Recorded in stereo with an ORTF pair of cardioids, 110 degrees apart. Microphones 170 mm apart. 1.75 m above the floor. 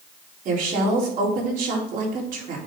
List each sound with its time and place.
0.5 s a woman speaking: 55° right, 4 m